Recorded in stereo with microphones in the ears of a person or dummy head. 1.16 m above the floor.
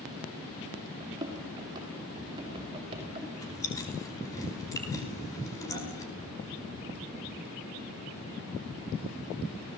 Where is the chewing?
20° left (ahead or behind), 5 m.